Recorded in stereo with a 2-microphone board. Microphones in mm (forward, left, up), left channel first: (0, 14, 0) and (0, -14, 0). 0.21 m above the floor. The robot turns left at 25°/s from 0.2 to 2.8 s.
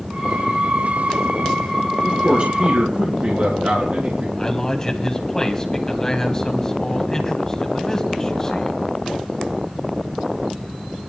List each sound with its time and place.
2.0 s a man speaking: 45° right (ahead or behind), 3 m; by 4.3 s 60° right (ahead or behind), 3 m
4.4 s a man speaking: 25° left (ahead or behind), 1.6 m